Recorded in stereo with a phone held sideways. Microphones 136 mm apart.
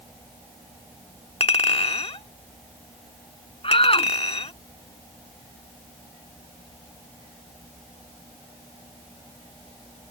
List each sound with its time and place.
1.4 s a clink: 45° left (ahead or behind)
3.6 s a shout: 40° left (ahead or behind)